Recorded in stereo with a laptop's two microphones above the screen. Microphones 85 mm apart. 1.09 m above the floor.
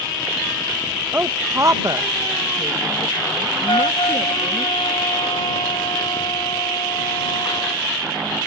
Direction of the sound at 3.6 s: 75° left (ahead or behind).